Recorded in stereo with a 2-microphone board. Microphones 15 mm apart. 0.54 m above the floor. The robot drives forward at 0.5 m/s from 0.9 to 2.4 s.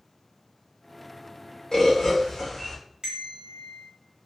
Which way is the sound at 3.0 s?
50° right (ahead or behind).